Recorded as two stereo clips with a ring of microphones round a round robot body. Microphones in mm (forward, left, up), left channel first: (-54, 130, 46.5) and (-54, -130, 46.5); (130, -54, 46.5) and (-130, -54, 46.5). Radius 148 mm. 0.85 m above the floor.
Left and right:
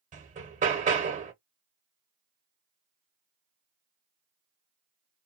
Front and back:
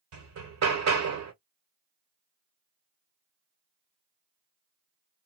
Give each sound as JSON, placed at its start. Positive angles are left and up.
{"t": 0.1, "sound": "hammering", "azimuth_deg": -155, "distance_m": 1.2}